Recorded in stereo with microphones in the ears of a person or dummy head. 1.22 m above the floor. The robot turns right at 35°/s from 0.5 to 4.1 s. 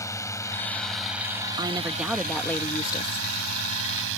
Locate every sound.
0.0 s a drone: 15° left (ahead or behind); by 4.2 s 65° right (ahead or behind)
1.6 s a woman speaking: 20° right; by 3.3 s 40° left